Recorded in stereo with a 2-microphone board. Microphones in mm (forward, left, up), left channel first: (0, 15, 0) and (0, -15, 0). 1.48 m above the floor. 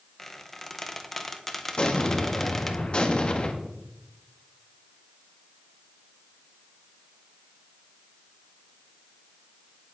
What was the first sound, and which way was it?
A squeak, 10° left (ahead or behind).